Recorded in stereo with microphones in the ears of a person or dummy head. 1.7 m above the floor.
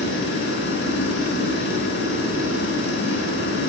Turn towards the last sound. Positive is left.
turn(degrees=70)  # may be behind; listen again after turning